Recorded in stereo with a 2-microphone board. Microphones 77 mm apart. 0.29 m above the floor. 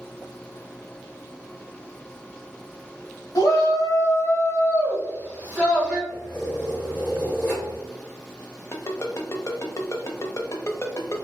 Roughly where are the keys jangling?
Left.